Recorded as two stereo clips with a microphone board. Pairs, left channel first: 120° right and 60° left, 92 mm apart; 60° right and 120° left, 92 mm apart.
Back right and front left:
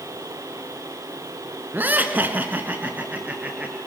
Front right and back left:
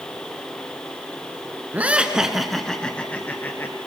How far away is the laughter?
About 1.5 m.